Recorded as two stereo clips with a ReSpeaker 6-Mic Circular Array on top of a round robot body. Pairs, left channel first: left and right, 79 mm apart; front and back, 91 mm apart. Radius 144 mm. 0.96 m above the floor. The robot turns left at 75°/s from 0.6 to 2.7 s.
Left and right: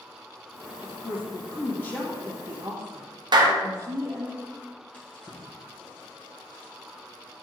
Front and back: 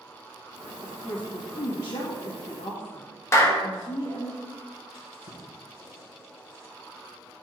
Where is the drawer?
20° left, 2.5 m.